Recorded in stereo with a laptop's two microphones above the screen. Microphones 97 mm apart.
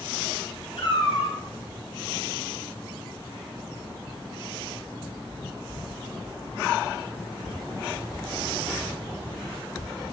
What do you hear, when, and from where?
0.8 s a cat meowing: 75° left (ahead or behind), 2 m